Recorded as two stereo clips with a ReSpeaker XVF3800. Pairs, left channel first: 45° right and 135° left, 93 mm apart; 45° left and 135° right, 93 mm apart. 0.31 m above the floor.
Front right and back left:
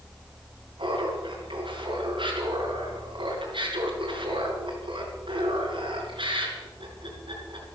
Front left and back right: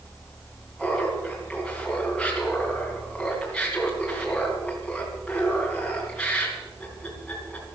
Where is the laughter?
130° left, 3 m.